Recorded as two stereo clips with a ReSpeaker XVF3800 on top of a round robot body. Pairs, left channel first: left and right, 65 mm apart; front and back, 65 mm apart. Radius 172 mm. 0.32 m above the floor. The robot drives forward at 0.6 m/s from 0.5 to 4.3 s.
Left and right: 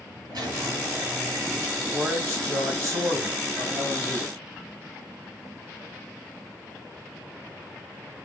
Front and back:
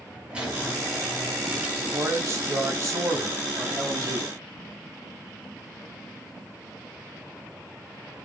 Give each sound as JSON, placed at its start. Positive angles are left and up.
{"t": 0.3, "sound": "a squeak", "azimuth_deg": -105, "distance_m": 4.5}
{"t": 1.8, "sound": "a man speaking", "azimuth_deg": -125, "distance_m": 3.5}